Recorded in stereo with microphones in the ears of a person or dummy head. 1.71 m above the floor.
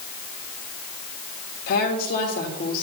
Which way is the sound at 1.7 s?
45° left (ahead or behind).